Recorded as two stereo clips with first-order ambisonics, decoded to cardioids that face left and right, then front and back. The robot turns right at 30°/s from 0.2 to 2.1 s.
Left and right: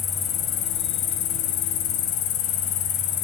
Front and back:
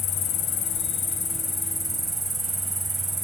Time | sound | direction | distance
0.0 | an insect | 40° left | 2 m